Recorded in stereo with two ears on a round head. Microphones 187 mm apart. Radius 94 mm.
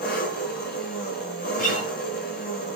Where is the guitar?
40° left (ahead or behind), 8.5 m.